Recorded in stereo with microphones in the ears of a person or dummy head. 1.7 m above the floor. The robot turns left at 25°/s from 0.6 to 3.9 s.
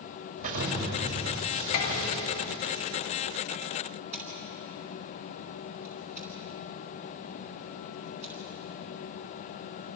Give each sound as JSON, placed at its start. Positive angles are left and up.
{"t": 0.4, "sound": "an explosion", "azimuth_deg": -115, "distance_m": 5.5}
{"t": 1.7, "sound": "dishes clattering", "azimuth_deg": 55, "distance_m": 2.5}
{"t": 4.1, "sound": "scissors", "side_deg": -10, "distance_m": 8.5}